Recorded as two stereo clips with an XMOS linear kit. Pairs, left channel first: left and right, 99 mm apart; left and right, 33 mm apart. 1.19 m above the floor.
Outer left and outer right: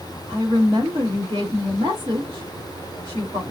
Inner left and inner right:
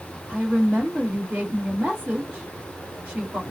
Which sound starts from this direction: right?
A woman speaking, at 0.3 s.